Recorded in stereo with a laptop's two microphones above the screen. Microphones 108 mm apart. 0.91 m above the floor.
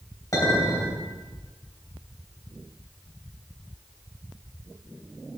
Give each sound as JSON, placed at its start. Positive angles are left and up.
{"t": 0.3, "sound": "a clink", "side_deg": 30, "distance_m": 3.0}